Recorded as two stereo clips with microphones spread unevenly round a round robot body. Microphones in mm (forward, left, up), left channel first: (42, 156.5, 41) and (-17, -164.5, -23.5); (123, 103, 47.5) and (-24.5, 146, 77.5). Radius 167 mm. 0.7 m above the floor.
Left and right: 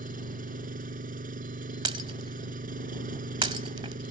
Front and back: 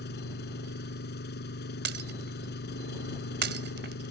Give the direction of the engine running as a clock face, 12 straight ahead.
1 o'clock.